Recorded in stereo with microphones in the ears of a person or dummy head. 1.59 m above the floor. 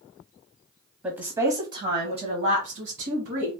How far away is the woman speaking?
About 0.8 m.